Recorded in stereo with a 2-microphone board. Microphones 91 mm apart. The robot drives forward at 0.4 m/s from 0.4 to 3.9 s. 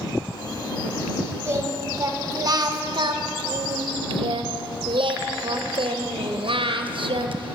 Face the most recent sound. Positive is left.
turn(degrees=-70)  # may be behind; listen again after turning